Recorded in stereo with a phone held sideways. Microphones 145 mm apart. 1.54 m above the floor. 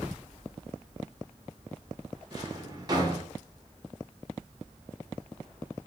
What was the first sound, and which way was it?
A drawer, 30° right (ahead or behind).